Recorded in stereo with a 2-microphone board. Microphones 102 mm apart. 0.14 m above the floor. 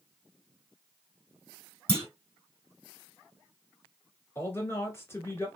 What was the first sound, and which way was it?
A clunk, 10° left (ahead or behind).